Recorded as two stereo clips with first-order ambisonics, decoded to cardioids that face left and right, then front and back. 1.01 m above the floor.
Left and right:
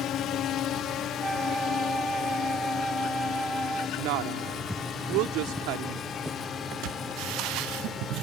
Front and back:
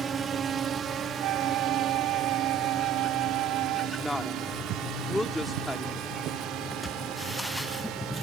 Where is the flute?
175° right.